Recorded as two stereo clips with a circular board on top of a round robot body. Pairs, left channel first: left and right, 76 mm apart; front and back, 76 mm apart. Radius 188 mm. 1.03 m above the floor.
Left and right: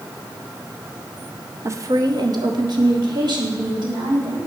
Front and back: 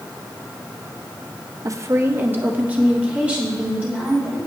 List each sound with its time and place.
1.6 s a woman speaking: 140° right, 0.8 m; by 4.5 s 100° right, 4 m